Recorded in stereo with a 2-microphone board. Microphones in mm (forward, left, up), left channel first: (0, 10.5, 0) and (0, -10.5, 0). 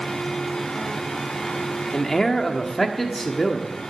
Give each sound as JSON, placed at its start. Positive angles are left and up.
{"t": 1.9, "sound": "a man speaking", "side_deg": 25, "distance_m": 1.4}